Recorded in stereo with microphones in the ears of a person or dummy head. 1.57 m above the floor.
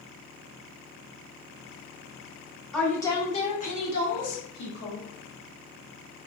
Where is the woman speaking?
Centre (ahead or behind), 0.6 m; by 5.0 s 65° left (ahead or behind), 1.3 m.